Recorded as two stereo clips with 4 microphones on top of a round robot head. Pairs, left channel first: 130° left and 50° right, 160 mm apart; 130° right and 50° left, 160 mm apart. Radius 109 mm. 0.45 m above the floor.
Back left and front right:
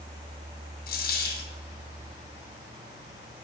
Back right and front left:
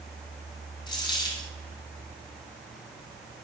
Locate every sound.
0.9 s a dropped coin: 165° left, 1.8 m